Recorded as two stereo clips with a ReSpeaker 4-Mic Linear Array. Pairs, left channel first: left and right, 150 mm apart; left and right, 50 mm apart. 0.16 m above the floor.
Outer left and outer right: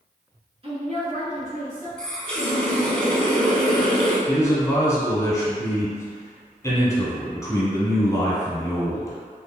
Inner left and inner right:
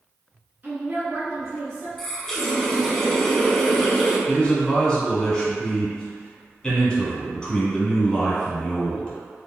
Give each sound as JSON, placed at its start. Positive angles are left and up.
{"t": 0.6, "sound": "a woman speaking", "side_deg": -40, "distance_m": 1.8}
{"t": 2.0, "sound": "a running tap", "side_deg": 5, "distance_m": 0.8}
{"t": 4.3, "sound": "a man speaking", "side_deg": 20, "distance_m": 1.2}